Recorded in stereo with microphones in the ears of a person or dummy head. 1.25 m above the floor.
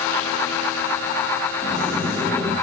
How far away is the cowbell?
No cowbell in this recording.